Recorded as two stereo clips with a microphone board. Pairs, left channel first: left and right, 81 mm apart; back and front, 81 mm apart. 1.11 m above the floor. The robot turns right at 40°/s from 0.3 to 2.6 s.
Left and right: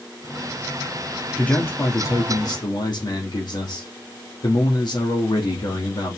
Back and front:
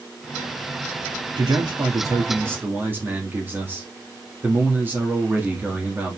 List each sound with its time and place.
1.4 s a man speaking: 15° left, 3 m; by 6.2 s 65° left, 3 m